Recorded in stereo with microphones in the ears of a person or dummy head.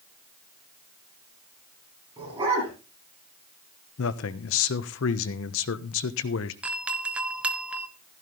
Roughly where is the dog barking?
Centre.